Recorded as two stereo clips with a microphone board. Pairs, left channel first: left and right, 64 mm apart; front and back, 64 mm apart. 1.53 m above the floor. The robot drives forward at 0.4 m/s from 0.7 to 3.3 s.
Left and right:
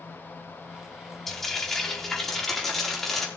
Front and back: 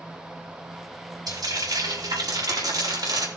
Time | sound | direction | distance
1.3 | frying | 175° left | 3 m